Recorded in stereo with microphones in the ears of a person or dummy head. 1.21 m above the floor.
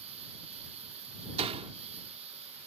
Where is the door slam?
30° right (ahead or behind).